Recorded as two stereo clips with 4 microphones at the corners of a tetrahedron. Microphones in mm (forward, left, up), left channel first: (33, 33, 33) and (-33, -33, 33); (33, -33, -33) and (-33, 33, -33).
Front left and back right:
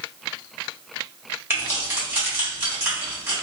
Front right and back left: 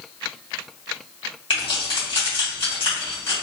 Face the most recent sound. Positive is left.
turn(degrees=-70)